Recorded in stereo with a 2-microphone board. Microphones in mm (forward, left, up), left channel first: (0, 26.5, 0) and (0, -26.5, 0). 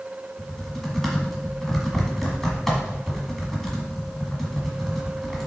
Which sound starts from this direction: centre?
Typing on a keyboard, at 0.4 s.